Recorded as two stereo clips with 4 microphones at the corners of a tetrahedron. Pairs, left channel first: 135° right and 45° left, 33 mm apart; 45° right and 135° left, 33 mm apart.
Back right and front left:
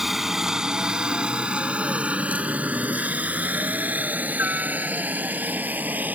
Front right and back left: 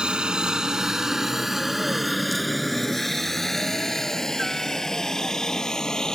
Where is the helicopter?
115° left; by 6.2 s 25° left.